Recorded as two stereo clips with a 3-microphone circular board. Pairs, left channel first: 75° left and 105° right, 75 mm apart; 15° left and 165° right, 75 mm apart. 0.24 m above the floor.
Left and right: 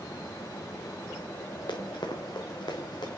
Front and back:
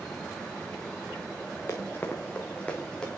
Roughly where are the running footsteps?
Ahead left.